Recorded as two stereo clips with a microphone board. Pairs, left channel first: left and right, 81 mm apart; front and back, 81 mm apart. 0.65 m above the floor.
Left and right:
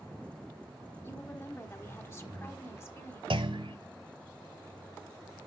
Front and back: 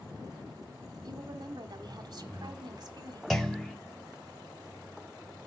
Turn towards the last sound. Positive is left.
turn(degrees=-85)